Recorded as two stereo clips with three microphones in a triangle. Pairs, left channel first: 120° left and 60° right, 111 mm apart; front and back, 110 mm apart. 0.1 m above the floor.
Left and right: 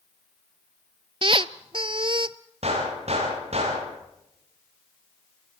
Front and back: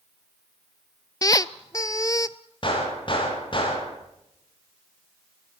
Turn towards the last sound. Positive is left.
turn(degrees=-40)